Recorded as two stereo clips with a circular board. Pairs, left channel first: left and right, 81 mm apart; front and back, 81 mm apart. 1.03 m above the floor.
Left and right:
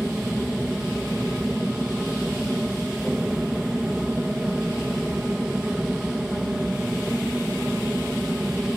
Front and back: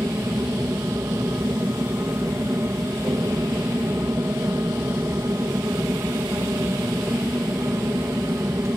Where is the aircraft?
165° right.